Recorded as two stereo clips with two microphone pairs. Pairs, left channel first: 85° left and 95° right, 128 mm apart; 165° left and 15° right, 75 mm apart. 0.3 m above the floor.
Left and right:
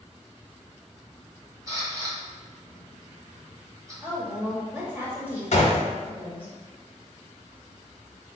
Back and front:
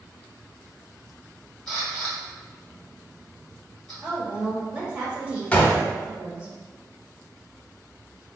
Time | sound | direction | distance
1.7 | a camera shutter | 115° right | 1.4 m
4.0 | a woman speaking | 45° right | 0.9 m
5.5 | a gunshot | 95° left | 0.6 m